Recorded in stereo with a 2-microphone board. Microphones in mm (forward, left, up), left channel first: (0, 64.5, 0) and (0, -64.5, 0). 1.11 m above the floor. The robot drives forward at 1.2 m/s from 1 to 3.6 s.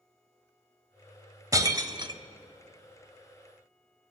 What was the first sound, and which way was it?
Breaking glass, 25° right (ahead or behind).